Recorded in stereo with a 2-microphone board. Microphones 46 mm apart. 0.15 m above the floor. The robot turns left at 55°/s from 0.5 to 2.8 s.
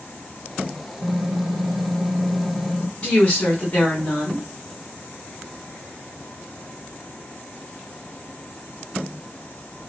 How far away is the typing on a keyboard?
About 2.0 m.